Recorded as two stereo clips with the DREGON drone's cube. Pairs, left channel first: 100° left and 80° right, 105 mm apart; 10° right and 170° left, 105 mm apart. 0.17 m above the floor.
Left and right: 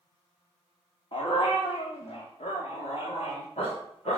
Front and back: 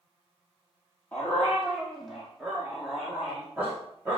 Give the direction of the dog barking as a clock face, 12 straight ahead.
10 o'clock.